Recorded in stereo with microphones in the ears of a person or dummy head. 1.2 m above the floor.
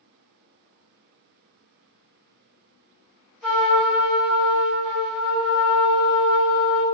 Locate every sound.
3.4 s a trumpet: centre (ahead or behind), 1.5 m